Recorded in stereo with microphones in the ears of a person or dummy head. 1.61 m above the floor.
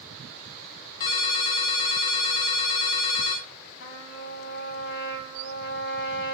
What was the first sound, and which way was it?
A ringtone, 25° left (ahead or behind).